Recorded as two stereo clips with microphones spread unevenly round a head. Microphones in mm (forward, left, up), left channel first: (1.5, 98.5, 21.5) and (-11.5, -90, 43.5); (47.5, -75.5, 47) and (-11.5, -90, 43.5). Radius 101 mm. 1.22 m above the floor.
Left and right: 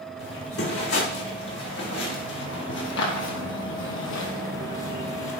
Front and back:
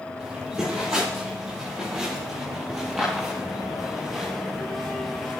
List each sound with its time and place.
0.2 s footsteps: 120° left, 4 m; by 5.4 s 90° left, 1.8 m